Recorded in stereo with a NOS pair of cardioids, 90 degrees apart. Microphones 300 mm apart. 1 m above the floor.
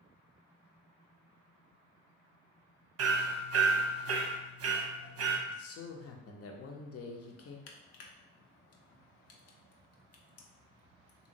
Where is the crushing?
60° left, 0.6 m.